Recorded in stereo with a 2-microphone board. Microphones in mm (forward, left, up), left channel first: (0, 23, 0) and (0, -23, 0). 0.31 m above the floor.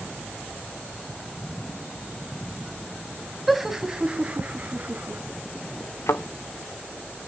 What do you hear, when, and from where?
3.5 s laughter: 5° right (ahead or behind), 1.9 m; by 5.2 s 45° right (ahead or behind), 3 m
6.1 s a thud: 80° left, 1.4 m